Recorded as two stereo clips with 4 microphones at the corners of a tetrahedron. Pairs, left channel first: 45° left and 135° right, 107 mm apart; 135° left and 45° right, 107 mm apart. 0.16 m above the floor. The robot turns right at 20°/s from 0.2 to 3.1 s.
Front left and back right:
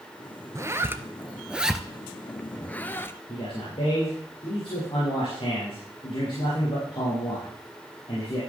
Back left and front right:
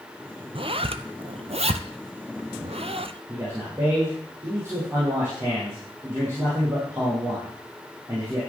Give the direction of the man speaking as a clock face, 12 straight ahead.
11 o'clock.